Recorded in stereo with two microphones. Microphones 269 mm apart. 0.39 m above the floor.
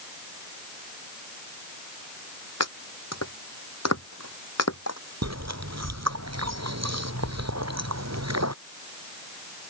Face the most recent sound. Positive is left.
turn(degrees=-70)  # may be behind; listen again after turning